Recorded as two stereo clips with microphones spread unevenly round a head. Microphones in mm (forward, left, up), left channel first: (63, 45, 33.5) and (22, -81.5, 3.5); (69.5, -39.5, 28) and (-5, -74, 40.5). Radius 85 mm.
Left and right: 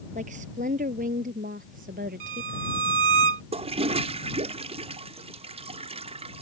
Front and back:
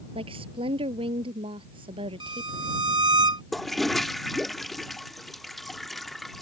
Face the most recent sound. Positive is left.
turn(degrees=-60)